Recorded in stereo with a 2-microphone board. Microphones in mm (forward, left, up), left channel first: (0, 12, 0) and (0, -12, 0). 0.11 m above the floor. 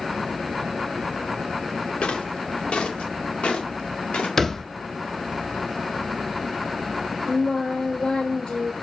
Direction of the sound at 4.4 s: 20° left (ahead or behind).